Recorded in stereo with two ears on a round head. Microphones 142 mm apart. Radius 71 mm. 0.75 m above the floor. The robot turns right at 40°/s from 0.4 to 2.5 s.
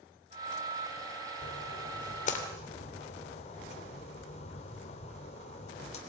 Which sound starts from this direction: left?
A splash, at 1.4 s.